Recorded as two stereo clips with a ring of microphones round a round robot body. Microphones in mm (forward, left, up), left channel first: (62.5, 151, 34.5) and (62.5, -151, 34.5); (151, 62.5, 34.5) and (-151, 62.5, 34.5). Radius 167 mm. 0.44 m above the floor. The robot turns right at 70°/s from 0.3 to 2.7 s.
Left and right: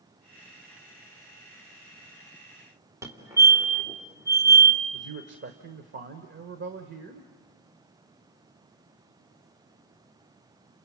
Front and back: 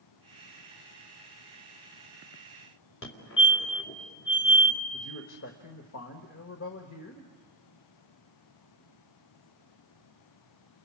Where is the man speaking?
45° right, 1.5 m.